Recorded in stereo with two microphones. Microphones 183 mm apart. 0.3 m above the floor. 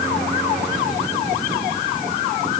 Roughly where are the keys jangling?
No keys jangling in this recording.